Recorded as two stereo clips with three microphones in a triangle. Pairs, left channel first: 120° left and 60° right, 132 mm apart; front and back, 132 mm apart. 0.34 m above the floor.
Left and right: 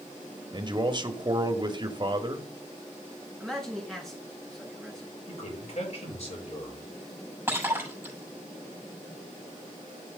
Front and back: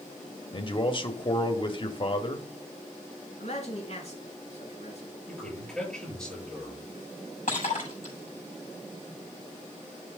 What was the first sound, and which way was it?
A man speaking, 25° right.